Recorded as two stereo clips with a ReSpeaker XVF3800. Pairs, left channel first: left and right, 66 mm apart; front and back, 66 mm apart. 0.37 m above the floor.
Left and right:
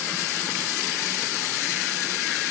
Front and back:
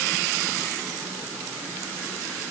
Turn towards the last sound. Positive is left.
No sound to turn to.